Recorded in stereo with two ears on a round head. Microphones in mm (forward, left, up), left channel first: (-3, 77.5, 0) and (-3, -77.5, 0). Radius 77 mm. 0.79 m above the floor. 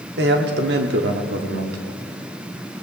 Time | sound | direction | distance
0.2 | a man speaking | 65° right (ahead or behind) | 1.4 m